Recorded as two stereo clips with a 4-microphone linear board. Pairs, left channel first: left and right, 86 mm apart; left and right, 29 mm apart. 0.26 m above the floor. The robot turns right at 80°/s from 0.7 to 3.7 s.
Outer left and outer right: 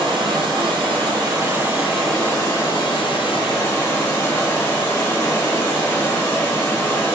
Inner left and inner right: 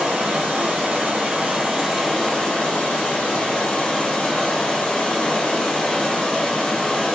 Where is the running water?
100° right, 1.6 m; by 7.2 s 140° left, 1.6 m.